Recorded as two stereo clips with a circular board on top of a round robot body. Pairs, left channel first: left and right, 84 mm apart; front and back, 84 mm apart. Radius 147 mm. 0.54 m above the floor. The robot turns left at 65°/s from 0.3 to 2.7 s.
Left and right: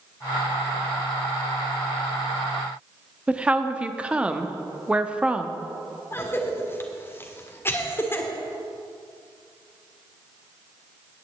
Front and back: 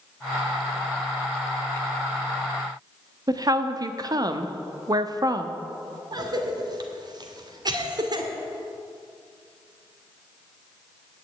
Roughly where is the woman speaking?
Behind.